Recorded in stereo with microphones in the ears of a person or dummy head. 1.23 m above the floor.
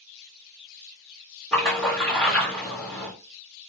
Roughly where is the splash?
Centre.